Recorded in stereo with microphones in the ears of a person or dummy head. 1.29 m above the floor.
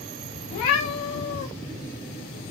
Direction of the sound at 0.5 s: 25° left (ahead or behind).